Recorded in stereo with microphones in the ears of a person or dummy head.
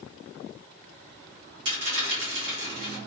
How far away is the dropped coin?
About 1.0 m.